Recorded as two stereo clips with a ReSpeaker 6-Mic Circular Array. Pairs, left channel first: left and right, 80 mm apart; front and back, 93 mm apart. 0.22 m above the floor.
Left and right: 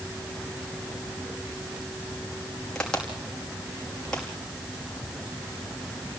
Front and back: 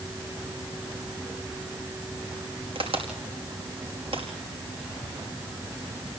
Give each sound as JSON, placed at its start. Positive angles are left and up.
{"t": 2.8, "sound": "a crack", "azimuth_deg": 170, "distance_m": 5.0}